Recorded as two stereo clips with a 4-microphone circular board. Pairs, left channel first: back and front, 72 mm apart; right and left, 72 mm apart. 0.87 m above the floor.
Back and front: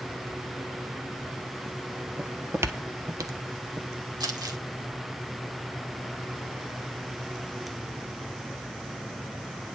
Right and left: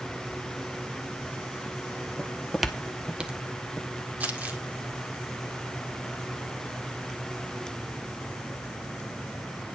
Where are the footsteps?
45° right, 0.9 m; by 3.9 s 20° left, 1.9 m.